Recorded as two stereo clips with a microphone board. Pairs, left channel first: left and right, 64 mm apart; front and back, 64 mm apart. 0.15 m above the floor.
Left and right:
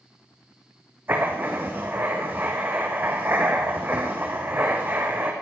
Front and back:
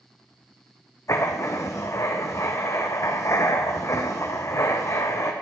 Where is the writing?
35° right, 2.5 m.